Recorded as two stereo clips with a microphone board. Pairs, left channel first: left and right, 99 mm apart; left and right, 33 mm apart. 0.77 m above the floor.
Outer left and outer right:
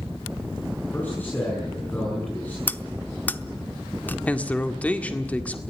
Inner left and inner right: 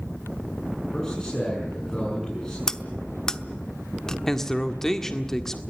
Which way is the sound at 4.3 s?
15° left (ahead or behind).